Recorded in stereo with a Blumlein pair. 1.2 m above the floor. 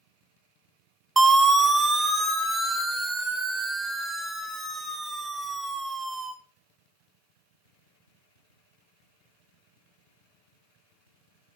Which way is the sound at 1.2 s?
5° right.